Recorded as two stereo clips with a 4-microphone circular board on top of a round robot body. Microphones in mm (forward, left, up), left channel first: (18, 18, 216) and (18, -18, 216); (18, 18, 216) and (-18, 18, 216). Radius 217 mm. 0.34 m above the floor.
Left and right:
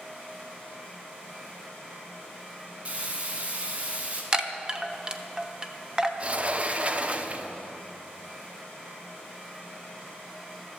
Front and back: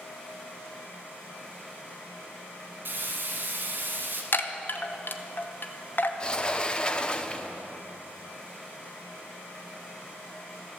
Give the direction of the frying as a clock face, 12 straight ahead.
5 o'clock.